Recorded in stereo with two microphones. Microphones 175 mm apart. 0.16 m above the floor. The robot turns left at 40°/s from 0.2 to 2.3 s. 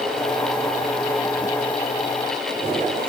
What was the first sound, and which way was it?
Only background noise.